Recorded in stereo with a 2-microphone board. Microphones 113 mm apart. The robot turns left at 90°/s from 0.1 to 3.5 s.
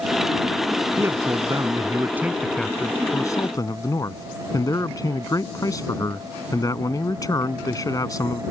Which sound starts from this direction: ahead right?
A man speaking, at 1.0 s.